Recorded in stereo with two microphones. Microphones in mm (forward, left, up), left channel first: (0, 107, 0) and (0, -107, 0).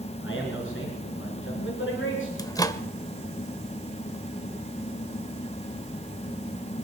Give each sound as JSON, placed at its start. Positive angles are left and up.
{"t": 0.2, "sound": "a man speaking", "side_deg": 65, "distance_m": 3.5}
{"t": 2.4, "sound": "a microwave", "side_deg": 15, "distance_m": 0.8}